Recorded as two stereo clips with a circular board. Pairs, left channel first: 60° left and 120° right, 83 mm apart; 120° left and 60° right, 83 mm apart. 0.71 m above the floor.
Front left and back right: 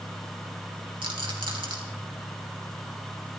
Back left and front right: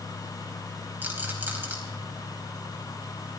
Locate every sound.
1.0 s a rattle: 125° right, 3.5 m